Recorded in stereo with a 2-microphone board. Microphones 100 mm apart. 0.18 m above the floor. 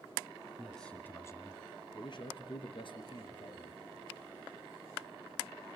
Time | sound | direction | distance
0.6 | a man speaking | centre (ahead or behind) | 1.7 m